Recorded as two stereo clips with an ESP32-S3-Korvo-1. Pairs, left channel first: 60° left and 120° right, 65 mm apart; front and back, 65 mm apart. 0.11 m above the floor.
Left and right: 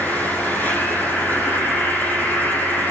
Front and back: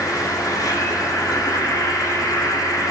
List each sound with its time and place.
0.0 s an insect: straight ahead, 6 m